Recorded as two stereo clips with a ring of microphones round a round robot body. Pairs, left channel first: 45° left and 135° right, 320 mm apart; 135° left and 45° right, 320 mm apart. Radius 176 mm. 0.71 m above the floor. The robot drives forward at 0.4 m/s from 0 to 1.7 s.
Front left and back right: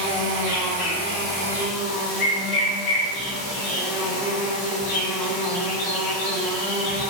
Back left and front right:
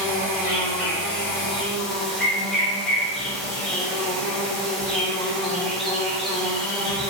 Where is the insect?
40° left, 4.5 m; by 7.1 s 45° left, 4 m.